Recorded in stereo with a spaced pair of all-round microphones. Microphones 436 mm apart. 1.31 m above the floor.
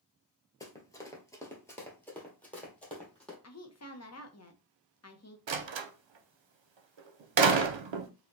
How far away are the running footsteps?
About 1.3 m.